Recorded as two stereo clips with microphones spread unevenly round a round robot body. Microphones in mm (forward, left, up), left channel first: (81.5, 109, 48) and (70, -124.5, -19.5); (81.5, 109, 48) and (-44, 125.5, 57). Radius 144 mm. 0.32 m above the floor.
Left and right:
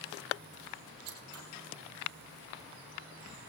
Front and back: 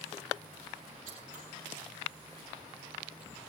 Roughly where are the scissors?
Behind right.